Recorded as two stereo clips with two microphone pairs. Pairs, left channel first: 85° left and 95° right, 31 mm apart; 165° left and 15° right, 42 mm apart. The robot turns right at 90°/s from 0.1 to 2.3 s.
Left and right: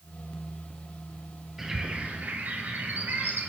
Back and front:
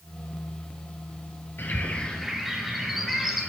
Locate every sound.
1.6 s a bird: 170° right, 3.5 m; by 3.5 s 105° right, 3.5 m